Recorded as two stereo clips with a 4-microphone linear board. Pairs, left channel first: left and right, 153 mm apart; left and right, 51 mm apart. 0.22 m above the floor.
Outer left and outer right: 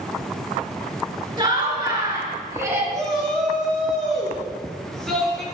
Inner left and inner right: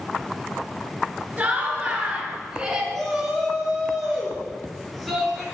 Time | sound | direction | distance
1.4 | laughter | 30° right (ahead or behind) | 3 m
2.9 | a shout | 5° left (ahead or behind) | 3.5 m